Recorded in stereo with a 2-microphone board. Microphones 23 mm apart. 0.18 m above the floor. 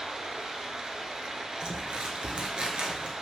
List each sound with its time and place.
0.0 s running water: 40° right (ahead or behind), 1.1 m
1.6 s crumpling: 55° right (ahead or behind), 0.8 m